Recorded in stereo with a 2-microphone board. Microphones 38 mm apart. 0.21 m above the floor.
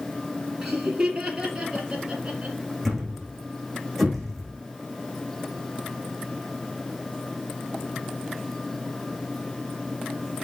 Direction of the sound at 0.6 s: 10° right (ahead or behind).